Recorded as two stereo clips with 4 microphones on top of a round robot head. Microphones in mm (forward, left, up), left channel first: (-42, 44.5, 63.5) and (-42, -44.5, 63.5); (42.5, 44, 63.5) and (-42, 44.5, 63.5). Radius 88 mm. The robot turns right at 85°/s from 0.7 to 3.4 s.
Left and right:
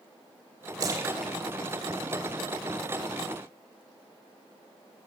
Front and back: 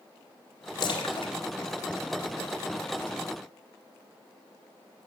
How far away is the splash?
About 2 m.